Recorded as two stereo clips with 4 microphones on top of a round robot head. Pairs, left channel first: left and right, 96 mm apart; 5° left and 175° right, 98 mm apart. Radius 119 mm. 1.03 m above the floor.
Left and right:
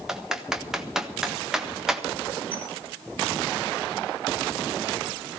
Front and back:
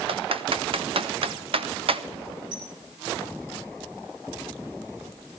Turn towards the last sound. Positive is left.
turn(degrees=-125)